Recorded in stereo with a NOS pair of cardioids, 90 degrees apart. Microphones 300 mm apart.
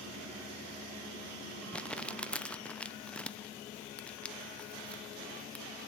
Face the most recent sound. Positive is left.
turn(degrees=5)